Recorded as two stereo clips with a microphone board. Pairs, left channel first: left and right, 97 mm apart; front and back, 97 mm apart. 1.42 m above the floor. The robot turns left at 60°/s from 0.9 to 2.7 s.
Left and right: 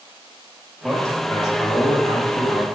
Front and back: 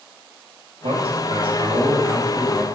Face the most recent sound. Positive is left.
turn(degrees=70)